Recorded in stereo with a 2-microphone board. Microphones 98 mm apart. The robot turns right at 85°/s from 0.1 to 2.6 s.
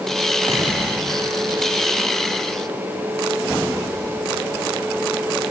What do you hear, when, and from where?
0.5 s an explosion: 40° right, 5 m; by 1.8 s 75° left, 5 m